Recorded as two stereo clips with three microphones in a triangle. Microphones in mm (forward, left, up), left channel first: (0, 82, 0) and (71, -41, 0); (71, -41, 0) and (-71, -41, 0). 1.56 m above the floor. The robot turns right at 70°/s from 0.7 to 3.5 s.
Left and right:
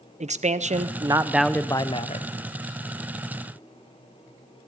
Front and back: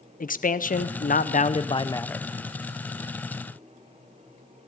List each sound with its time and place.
0.2 s a man speaking: 20° right, 0.9 m; by 2.3 s 90° left, 0.9 m